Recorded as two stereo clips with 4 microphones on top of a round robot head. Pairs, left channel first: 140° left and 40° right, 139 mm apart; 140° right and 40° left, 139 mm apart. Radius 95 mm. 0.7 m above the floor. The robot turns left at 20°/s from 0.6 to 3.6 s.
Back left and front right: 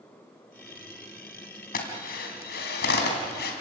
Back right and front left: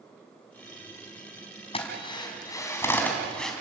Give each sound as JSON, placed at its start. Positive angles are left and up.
{"t": 1.7, "sound": "a drill", "azimuth_deg": 165, "distance_m": 3.0}